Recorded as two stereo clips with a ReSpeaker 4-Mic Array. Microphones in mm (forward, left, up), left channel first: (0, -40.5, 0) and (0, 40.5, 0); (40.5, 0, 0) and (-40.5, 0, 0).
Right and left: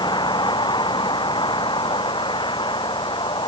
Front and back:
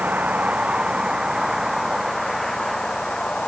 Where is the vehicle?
105° right; by 3.5 s 80° right.